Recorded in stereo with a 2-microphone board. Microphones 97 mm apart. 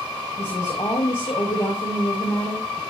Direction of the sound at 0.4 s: 65° left (ahead or behind).